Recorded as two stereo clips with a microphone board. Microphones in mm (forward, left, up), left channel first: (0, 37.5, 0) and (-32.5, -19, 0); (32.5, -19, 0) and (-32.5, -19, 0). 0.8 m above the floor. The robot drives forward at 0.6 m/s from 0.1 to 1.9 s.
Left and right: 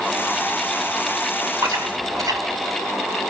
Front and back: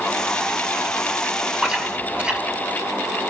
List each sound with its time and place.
1.6 s chewing: 100° right, 1.9 m; by 2.4 s 105° right, 2.0 m